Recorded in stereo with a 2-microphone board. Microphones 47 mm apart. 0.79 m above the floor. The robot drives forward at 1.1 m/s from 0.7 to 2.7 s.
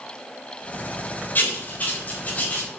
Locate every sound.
1.4 s writing: 40° left (ahead or behind), 3.5 m; by 2.7 s 30° left (ahead or behind), 4.5 m